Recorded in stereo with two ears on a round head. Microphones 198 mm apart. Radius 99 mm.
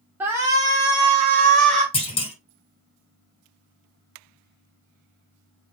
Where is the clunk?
25° left (ahead or behind), 1.4 m.